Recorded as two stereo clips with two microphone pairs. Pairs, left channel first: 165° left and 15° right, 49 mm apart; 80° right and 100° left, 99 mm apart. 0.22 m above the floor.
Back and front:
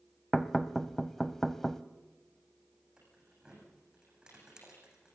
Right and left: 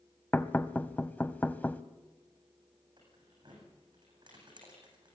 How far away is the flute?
I don't hear a flute.